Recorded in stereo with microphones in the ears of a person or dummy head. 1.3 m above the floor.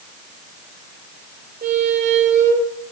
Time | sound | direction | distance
1.6 | a squeak | 40° right (ahead or behind) | 3 m